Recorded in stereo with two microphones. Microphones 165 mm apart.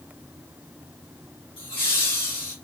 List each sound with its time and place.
1.6 s laughter: 35° left (ahead or behind), 1.4 m